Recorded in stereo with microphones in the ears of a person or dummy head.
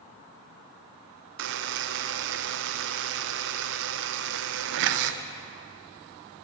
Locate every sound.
1.4 s a buzzer: 65° right (ahead or behind), 0.7 m